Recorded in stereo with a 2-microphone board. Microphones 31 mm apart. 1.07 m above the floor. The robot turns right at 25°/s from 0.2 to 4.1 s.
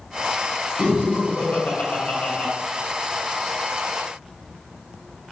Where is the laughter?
60° left (ahead or behind), 1.1 m; by 2.5 s 45° left (ahead or behind), 1.1 m.